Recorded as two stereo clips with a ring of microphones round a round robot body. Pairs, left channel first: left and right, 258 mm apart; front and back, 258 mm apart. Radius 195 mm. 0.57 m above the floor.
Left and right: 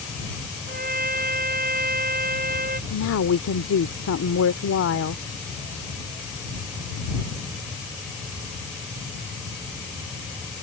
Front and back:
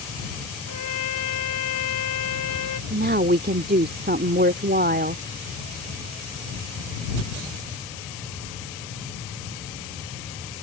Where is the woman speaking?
125° left.